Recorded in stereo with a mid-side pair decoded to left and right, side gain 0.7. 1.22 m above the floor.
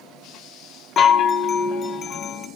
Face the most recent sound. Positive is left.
turn(degrees=40)